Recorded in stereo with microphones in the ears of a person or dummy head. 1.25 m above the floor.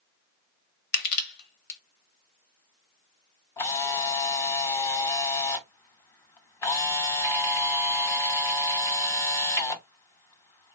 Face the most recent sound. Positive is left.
turn(degrees=15)  # may be behind; listen again after turning